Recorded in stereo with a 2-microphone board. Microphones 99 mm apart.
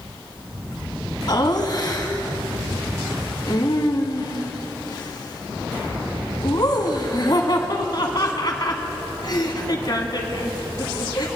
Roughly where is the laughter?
Left.